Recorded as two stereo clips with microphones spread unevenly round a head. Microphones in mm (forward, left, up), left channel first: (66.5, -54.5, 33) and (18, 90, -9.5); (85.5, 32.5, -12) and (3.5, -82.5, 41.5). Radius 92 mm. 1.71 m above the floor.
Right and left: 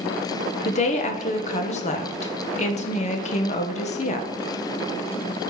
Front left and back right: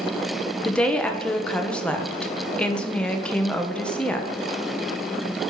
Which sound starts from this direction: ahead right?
A woman speaking, at 0.7 s.